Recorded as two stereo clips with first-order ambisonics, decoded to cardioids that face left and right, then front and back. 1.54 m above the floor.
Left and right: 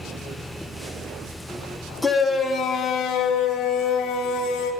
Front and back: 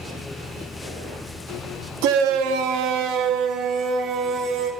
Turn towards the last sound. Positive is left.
turn(degrees=135)